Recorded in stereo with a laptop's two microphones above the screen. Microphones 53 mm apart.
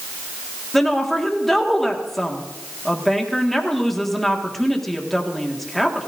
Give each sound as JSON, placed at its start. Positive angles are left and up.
{"t": 0.7, "sound": "a woman speaking", "side_deg": 5, "distance_m": 1.8}